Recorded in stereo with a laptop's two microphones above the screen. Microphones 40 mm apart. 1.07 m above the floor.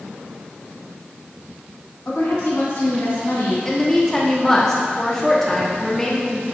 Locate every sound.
2.0 s a woman speaking: 75° left (ahead or behind), 1.9 m
3.6 s a woman speaking: 15° left (ahead or behind), 0.9 m